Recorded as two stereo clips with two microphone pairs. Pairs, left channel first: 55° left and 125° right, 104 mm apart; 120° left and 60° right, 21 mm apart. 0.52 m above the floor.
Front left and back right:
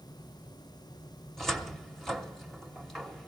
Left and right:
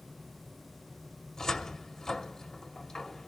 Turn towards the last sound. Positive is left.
turn(degrees=140)